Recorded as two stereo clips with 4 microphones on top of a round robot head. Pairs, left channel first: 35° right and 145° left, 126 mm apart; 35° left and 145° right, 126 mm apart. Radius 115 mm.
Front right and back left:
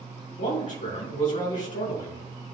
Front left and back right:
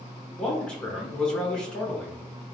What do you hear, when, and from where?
0.4 s a man speaking: 45° right, 2.5 m